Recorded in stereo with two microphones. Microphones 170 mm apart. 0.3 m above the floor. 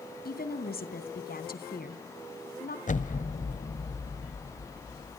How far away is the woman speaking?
About 2.5 m.